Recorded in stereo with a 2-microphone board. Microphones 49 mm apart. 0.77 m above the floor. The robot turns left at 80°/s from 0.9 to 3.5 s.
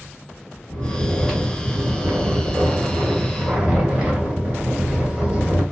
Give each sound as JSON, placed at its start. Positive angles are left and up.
{"t": 0.7, "sound": "snoring", "azimuth_deg": 45, "distance_m": 1.9}